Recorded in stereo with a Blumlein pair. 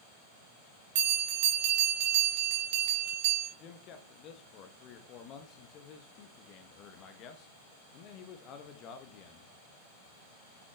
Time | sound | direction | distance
0.9 | a bell | 50° right | 1.5 m
3.6 | a man speaking | 35° left | 1.0 m